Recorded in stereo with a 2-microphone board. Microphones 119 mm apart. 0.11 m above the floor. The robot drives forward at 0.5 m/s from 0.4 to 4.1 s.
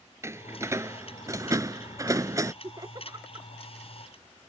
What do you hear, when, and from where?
0.2 s a door slam: 25° right (ahead or behind)
2.6 s laughter: 30° right (ahead or behind); by 3.5 s 35° right (ahead or behind)